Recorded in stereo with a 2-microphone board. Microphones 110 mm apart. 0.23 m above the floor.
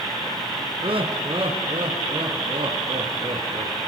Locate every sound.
0.8 s laughter: 50° right (ahead or behind), 2.5 m; by 3.8 s 45° right (ahead or behind), 4.5 m